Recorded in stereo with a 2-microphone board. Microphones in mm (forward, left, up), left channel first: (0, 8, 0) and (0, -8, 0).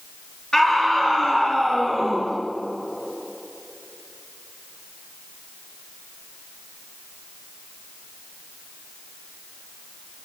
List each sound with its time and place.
0.5 s a scream: 50° left (ahead or behind), 6.5 m